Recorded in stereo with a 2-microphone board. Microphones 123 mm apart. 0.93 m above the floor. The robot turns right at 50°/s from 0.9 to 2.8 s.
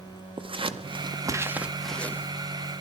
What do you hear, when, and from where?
0.4 s scissors: 45° right (ahead or behind), 0.6 m; by 2.3 s 20° left (ahead or behind), 0.6 m